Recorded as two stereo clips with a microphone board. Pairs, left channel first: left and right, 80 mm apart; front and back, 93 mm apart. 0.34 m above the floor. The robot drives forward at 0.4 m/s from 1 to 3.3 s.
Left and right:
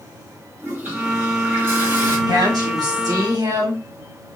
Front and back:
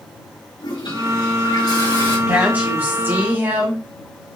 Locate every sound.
0.6 s a toilet flushing: 30° right, 2.5 m; by 2.2 s 35° right, 2 m
2.3 s a woman speaking: 105° right, 2 m; by 3.8 s 120° right, 2 m